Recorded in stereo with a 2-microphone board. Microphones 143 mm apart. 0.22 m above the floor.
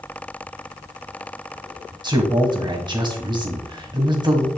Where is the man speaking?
30° right (ahead or behind), 1.6 m.